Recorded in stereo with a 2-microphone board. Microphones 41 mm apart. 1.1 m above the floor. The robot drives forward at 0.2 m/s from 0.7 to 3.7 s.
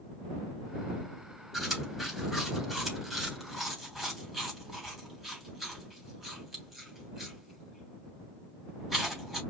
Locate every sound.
1.5 s chewing: 5° right (ahead or behind), 2.5 m